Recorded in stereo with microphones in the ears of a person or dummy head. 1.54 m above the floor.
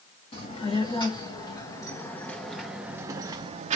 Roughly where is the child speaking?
Left.